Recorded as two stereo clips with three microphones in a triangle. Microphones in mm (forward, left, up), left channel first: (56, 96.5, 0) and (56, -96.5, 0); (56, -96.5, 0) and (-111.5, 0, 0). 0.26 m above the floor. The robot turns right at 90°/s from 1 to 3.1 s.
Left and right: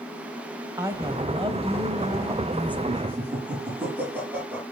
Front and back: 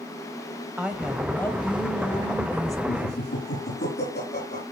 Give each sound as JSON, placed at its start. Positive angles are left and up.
{"t": 0.8, "sound": "a woman speaking", "azimuth_deg": -135, "distance_m": 1.2}
{"t": 2.9, "sound": "laughter", "azimuth_deg": -30, "distance_m": 8.0}